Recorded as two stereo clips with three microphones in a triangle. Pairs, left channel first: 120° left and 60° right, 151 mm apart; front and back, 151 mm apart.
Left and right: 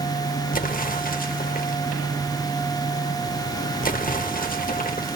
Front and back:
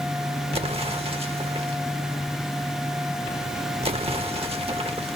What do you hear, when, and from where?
0.5 s an explosion: 130° left, 0.9 m